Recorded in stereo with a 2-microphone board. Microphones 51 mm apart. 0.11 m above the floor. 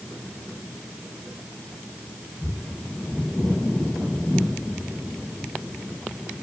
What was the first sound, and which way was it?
Only background noise.